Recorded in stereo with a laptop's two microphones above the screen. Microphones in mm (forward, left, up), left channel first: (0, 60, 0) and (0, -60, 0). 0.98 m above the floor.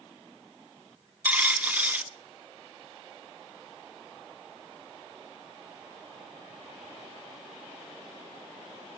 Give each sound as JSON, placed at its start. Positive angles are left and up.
{"t": 1.2, "sound": "a dropped coin", "side_deg": -15, "distance_m": 0.6}